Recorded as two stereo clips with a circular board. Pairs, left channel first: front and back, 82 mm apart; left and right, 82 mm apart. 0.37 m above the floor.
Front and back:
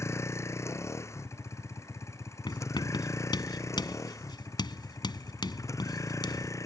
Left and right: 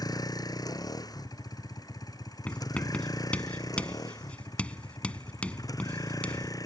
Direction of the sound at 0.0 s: 55° left.